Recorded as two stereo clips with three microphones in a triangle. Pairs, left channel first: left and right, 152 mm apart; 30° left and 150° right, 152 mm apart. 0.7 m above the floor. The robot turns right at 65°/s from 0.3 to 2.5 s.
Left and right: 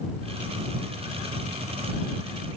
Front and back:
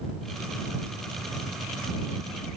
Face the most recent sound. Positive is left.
No sound to turn to.